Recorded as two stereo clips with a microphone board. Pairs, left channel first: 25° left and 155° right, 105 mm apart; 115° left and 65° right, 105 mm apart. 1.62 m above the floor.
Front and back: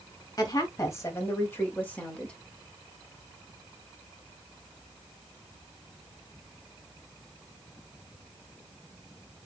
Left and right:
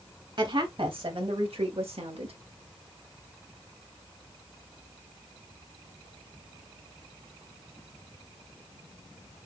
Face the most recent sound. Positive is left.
turn(degrees=-60)